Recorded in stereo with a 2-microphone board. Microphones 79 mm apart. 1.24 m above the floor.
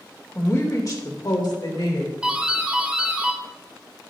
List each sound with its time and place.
0.3 s a woman speaking: 30° left (ahead or behind), 1.8 m; by 2.1 s 85° left, 2.5 m
2.2 s a doorbell: 10° right (ahead or behind), 1.1 m